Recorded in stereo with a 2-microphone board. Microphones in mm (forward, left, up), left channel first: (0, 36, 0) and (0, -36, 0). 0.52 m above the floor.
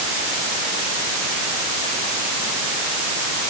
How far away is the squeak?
No squeak in this recording.